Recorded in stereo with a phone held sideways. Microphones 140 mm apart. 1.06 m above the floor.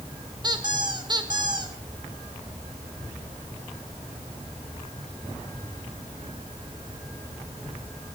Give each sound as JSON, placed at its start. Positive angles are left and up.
{"t": 0.4, "sound": "a squeak", "side_deg": -35, "distance_m": 2.0}